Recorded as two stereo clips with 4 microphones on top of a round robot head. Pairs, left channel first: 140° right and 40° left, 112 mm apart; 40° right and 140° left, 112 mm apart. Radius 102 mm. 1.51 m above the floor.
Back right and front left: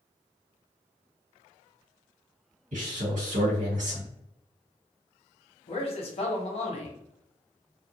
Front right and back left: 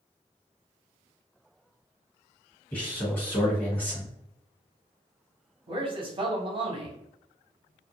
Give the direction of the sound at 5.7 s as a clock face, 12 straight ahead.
6 o'clock.